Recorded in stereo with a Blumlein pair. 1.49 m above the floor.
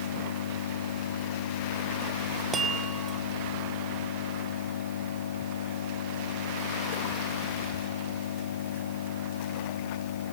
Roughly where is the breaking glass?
No breaking glass in this recording.